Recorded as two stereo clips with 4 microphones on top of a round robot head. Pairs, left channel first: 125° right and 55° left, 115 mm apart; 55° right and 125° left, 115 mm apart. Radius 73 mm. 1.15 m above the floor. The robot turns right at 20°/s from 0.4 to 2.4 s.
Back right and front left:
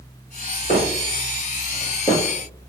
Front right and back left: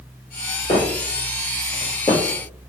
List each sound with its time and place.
0.7 s footsteps: 105° right, 1.6 m; by 2.7 s 150° right, 1.1 m